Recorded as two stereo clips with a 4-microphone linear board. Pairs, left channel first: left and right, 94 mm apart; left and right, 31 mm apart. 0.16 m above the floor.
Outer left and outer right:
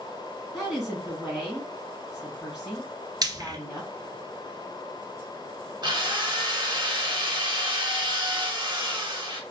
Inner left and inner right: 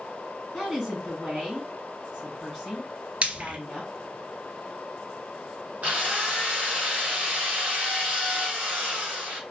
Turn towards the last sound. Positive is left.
turn(degrees=-50)  # may be behind; listen again after turning